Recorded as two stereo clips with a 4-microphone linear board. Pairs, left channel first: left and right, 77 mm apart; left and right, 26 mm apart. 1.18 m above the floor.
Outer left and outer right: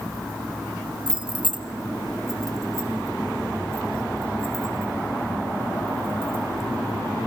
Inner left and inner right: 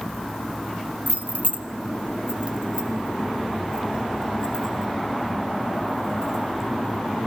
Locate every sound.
1.1 s keys jangling: 80° right, 0.7 m; by 6.7 s 30° right (ahead or behind), 6 m